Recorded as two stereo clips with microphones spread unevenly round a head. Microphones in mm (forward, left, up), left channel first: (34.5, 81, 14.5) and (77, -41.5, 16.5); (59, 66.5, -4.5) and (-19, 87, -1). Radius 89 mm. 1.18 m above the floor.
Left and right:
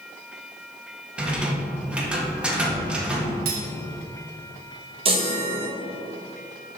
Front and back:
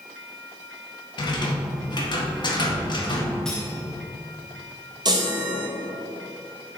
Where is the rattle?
10° left, 1.8 m.